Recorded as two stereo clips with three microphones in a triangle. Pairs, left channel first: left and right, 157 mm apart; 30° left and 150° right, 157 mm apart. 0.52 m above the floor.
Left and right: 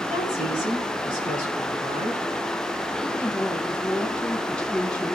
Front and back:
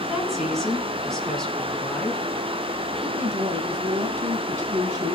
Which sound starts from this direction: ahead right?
A woman speaking, at 0.1 s.